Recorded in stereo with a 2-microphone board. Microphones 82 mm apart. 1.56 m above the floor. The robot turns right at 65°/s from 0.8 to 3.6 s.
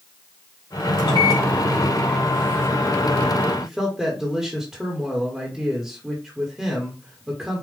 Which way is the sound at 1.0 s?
105° left.